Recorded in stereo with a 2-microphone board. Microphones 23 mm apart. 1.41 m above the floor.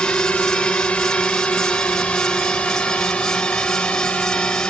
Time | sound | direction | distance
0.0 | a drone | 80° left | ?